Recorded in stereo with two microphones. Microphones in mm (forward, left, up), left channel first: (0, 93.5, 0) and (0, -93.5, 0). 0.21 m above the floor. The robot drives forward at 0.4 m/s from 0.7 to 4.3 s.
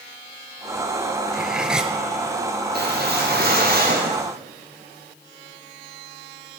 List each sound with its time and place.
1.3 s cutlery clinking: 5° right (ahead or behind), 2 m
2.7 s a whoosh: 60° right (ahead or behind), 5 m; by 4.3 s 55° right (ahead or behind), 5.5 m